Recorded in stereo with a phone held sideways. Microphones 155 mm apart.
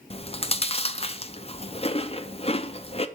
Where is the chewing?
40° left (ahead or behind), 0.5 m.